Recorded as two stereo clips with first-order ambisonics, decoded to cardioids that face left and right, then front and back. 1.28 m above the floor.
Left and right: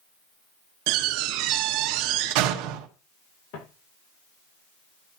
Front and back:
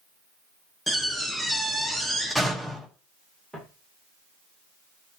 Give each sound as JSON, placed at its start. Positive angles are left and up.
{"t": 0.9, "sound": "a door slam", "azimuth_deg": -95, "distance_m": 1.4}
{"t": 3.5, "sound": "footsteps", "azimuth_deg": 90, "distance_m": 6.5}